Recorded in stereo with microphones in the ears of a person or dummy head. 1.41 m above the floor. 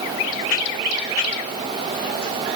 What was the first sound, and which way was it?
Only background noise.